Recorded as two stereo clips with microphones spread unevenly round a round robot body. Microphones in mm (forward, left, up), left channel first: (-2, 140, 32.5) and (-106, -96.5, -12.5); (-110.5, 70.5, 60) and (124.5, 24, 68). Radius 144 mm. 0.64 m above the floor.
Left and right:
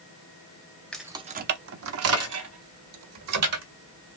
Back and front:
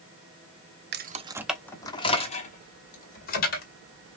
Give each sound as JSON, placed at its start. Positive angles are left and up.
{"t": 0.9, "sound": "keys jangling", "azimuth_deg": -30, "distance_m": 0.6}